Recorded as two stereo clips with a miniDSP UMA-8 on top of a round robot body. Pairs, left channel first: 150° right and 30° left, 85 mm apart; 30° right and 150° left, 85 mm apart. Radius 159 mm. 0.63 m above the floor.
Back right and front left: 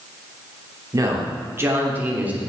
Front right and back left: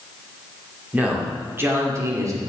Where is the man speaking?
80° left, 3 m; by 2.4 s 105° left, 2.5 m.